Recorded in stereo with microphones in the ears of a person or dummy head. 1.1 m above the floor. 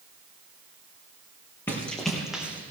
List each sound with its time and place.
1.7 s running footsteps: 10° left (ahead or behind), 3.5 m; by 2.7 s 15° right (ahead or behind), 3.5 m